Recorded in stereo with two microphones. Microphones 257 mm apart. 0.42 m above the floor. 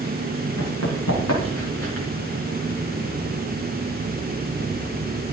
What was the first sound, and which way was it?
Running footsteps, 80° left.